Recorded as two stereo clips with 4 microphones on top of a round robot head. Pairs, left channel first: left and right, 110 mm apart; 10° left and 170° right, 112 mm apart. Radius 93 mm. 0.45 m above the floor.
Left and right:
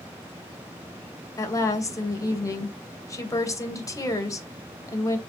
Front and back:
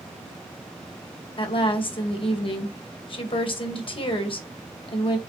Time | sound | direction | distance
1.4 | a woman speaking | 35° left | 3 m